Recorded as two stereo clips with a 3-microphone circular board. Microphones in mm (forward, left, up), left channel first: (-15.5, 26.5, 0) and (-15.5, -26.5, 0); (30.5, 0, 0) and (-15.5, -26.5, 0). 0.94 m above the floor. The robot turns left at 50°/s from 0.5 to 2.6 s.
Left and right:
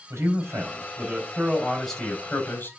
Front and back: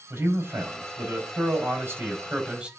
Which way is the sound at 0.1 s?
120° right.